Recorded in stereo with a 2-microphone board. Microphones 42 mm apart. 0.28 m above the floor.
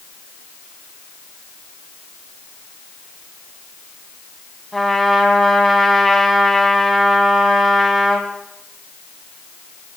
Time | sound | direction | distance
4.7 | a trumpet | 5° left (ahead or behind) | 3 m